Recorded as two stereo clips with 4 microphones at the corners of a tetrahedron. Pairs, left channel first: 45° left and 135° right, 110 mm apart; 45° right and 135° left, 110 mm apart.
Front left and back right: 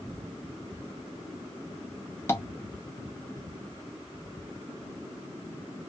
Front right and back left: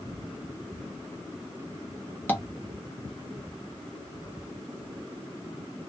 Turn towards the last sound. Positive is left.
turn(degrees=5)